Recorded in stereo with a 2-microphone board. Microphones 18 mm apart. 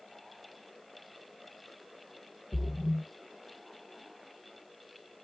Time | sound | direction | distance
2.5 | a splash | 10° right (ahead or behind) | 0.9 m